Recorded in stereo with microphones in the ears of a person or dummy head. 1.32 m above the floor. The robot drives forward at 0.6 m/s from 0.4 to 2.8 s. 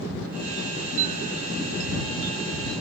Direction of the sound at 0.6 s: 40° right (ahead or behind).